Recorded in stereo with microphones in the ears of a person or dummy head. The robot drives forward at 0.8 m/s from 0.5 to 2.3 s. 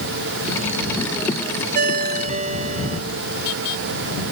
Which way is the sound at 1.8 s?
45° right (ahead or behind).